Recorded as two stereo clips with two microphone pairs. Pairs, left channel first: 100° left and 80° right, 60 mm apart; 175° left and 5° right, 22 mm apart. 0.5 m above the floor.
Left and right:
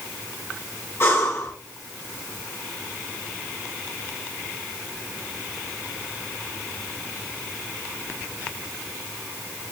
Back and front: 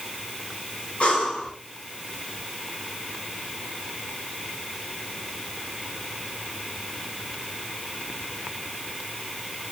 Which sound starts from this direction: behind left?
Breathing, at 1.0 s.